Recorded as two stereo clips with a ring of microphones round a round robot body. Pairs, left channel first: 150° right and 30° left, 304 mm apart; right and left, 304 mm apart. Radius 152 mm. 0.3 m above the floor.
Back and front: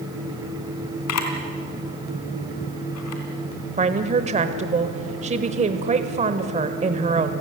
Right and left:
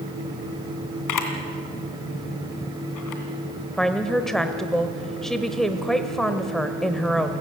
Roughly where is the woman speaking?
Ahead.